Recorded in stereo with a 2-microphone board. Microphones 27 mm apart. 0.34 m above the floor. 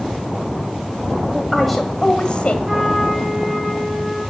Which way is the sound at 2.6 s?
10° right (ahead or behind).